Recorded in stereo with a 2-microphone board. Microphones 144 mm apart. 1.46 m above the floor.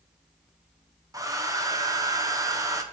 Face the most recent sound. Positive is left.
turn(degrees=-25)  # may be behind; listen again after turning